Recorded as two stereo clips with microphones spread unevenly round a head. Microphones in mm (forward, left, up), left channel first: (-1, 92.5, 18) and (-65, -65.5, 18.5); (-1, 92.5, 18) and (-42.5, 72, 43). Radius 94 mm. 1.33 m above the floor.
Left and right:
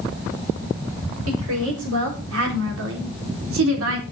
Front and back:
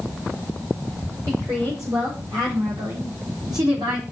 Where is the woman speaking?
95° right, 4.5 m; by 4.0 s 115° right, 3 m.